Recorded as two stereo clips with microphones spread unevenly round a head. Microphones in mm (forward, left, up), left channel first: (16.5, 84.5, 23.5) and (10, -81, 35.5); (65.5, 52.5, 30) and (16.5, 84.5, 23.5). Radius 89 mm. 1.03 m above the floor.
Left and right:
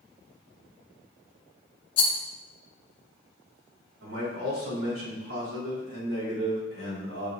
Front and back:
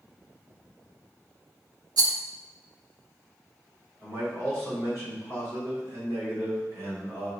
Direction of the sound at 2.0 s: 150° left.